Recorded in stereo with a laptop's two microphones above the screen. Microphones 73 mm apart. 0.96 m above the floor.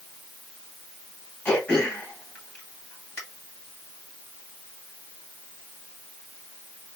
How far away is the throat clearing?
About 1.4 m.